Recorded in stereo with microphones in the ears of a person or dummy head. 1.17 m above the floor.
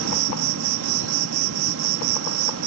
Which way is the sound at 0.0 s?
80° right.